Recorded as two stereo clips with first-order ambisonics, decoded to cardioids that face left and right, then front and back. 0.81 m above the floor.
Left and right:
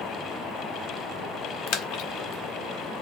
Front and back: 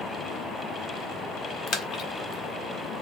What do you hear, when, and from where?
1.7 s a splash: 55° left, 0.6 m